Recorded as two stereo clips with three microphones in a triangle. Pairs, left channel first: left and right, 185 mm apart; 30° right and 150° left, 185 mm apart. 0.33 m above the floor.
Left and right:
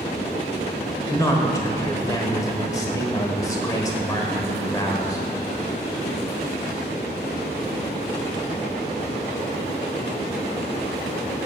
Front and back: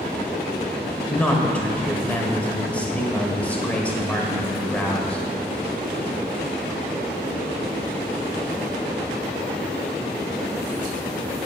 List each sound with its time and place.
1.1 s a man speaking: 45° left, 1.4 m